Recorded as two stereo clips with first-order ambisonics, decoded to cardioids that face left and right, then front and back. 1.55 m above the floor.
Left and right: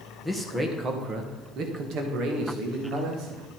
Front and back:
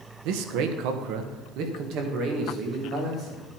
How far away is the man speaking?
About 1.3 m.